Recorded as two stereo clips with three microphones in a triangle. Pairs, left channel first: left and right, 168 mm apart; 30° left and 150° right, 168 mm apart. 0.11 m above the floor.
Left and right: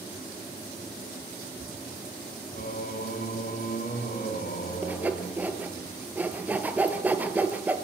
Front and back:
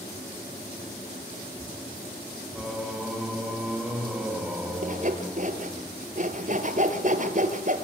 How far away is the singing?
About 4.5 m.